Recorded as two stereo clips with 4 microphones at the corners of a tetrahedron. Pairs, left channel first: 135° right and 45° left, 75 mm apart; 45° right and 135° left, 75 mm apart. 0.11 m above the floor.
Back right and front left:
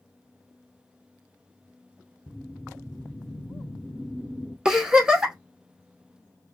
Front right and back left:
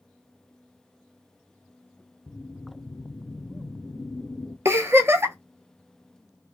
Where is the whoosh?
60° right, 0.6 m.